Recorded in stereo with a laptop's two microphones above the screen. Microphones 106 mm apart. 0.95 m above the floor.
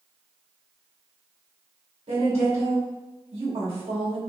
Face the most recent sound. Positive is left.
turn(degrees=-65)  # may be behind; listen again after turning